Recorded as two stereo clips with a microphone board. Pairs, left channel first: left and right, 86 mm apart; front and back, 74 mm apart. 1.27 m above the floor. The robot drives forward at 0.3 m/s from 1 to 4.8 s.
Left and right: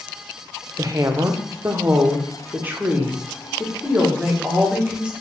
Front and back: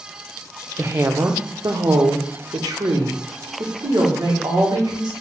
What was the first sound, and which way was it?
A woman speaking, 135° right.